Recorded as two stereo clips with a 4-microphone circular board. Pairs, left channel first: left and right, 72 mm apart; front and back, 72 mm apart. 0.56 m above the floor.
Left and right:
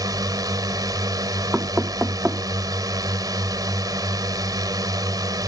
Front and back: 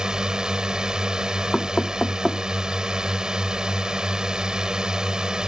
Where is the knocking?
60° right.